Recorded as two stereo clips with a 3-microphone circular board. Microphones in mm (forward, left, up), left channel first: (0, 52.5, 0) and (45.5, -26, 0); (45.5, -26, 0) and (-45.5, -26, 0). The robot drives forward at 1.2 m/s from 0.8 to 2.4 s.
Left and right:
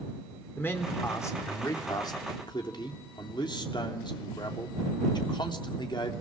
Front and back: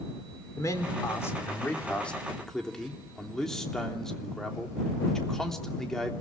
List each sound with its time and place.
0.6 s a man speaking: 55° left, 3.5 m; by 6.1 s 85° left, 3 m